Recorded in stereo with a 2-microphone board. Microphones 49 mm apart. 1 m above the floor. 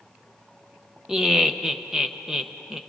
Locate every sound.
1.1 s laughter: 10° right (ahead or behind), 0.9 m